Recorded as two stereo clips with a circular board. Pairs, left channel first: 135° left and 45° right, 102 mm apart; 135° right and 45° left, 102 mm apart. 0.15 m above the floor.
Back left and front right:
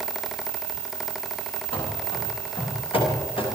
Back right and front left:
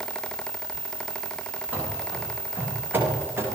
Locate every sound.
1.7 s running footsteps: 120° left, 10 m; by 3.5 s 110° left, 9.5 m